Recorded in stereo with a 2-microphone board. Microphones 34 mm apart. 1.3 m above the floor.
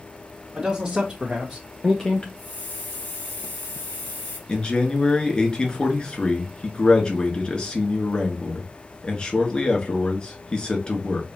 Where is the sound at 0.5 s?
20° right (ahead or behind), 1.8 m; by 2.3 s 35° left (ahead or behind), 0.6 m.